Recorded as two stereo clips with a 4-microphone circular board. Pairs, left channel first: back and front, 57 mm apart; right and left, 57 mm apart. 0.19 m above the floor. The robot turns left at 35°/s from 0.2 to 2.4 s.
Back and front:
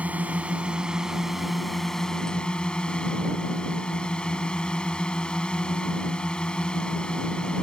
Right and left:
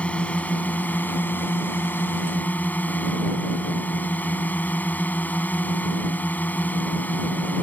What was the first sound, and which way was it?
A drone, 40° right.